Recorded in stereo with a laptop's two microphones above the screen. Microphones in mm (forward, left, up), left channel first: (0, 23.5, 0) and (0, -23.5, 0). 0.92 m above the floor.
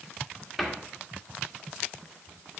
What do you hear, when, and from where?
0.6 s a cupboard door: centre (ahead or behind), 1.6 m